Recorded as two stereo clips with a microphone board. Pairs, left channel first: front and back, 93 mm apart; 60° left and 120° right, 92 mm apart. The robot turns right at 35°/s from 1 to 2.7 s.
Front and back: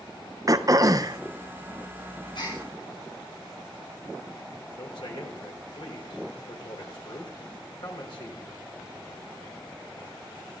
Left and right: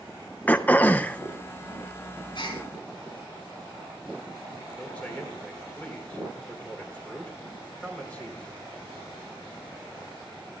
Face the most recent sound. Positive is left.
turn(degrees=-15)